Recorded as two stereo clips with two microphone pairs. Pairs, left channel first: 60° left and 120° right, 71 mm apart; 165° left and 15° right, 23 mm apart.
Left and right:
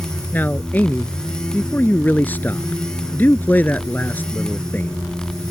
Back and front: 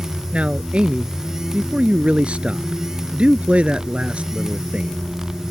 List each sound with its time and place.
0.3 s a man speaking: straight ahead